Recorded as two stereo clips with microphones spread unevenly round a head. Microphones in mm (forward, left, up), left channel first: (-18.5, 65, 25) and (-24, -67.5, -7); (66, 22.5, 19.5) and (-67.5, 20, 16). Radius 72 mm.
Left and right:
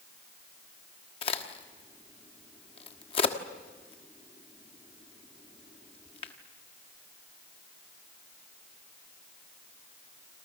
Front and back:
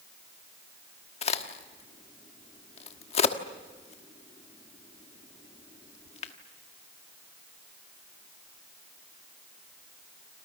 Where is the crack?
40° left, 1.4 m.